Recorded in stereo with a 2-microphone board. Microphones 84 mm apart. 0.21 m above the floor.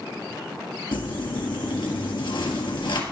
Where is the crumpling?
75° left (ahead or behind), 1.7 m.